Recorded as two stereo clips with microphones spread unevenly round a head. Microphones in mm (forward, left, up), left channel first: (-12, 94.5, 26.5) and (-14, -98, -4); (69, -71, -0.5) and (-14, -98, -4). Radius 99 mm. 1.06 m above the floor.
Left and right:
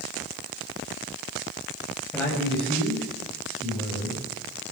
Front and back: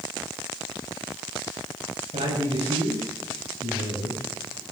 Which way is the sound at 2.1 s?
175° left.